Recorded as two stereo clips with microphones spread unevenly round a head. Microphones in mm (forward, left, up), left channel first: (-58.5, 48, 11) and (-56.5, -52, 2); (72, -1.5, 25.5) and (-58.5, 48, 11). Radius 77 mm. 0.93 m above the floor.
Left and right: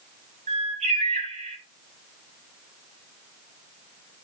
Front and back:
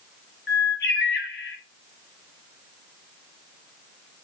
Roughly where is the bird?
Ahead right.